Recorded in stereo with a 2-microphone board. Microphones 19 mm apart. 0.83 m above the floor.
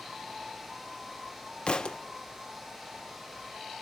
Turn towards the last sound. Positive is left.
turn(degrees=50)  # may be behind; listen again after turning